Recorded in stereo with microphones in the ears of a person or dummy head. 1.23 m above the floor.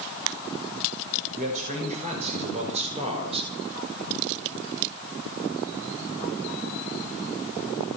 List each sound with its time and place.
1.3 s a man speaking: 40° right (ahead or behind), 5.5 m; by 3.5 s 30° right (ahead or behind), 3.5 m